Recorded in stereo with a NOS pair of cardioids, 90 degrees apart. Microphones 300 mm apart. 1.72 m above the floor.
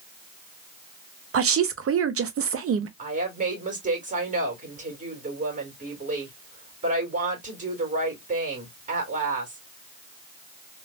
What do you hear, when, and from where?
1.3 s a woman speaking: 50° right, 0.8 m
3.0 s a woman speaking: 25° right, 2 m